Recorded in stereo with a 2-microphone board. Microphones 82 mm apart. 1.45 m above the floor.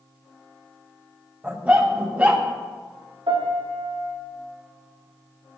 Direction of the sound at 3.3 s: 80° right.